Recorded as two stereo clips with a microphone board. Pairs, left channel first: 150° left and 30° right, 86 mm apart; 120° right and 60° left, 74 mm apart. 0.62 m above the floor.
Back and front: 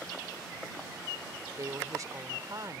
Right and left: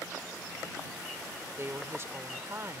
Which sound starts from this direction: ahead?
A woman speaking, at 1.6 s.